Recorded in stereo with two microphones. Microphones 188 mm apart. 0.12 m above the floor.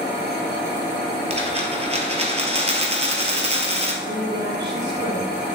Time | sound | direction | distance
1.3 | a dropped coin | 35° right (ahead or behind) | 1.4 m
4.0 | a woman speaking | 65° right (ahead or behind) | 3 m